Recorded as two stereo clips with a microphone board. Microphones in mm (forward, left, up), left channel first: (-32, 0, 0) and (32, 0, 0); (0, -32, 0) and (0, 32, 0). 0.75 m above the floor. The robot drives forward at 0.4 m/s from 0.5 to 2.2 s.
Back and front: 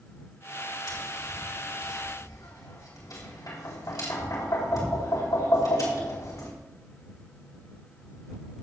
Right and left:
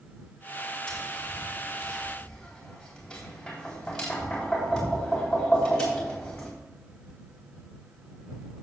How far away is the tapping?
About 3.5 m.